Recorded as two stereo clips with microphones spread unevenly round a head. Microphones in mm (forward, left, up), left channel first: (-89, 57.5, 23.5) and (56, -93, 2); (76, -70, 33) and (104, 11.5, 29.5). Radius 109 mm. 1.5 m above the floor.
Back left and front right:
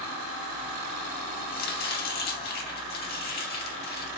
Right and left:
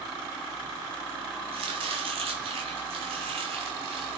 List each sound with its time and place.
1.5 s chopping: 90° left, 2 m